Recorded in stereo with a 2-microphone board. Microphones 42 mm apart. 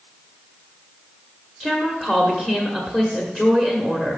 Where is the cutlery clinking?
No cutlery clinking in this recording.